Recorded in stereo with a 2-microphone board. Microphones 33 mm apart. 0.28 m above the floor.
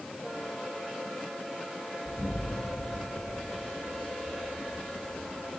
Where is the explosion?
30° left (ahead or behind), 3 m.